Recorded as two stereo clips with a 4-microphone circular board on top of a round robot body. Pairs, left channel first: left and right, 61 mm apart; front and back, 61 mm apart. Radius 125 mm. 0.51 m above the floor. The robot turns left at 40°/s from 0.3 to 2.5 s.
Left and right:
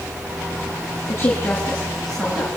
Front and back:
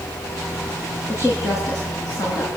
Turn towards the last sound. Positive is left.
turn(degrees=-15)